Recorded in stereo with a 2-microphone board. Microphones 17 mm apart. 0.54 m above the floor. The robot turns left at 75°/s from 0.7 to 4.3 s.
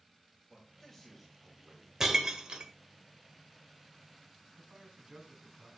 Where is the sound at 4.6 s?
55° right (ahead or behind), 3 m.